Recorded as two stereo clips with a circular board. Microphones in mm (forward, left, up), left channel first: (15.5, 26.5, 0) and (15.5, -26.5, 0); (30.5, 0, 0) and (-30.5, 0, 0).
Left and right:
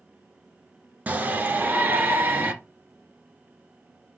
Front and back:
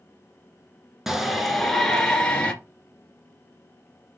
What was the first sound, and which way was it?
A shout, 100° right.